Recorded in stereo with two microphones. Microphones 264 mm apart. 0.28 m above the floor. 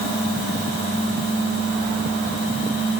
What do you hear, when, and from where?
Only background noise.